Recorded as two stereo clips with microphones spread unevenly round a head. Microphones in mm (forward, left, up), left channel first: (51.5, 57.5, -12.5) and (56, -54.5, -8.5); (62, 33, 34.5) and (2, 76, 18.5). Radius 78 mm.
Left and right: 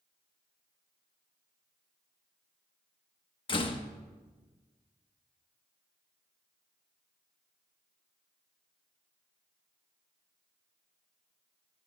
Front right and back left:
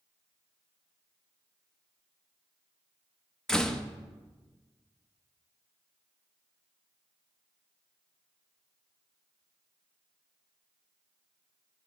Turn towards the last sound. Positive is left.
turn(degrees=50)